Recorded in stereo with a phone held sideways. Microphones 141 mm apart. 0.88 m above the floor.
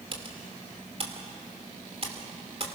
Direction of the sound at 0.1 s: 45° right (ahead or behind).